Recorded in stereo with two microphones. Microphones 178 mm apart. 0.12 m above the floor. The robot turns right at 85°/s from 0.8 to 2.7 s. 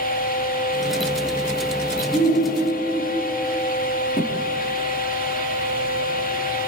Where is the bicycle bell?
I don't hear a bicycle bell.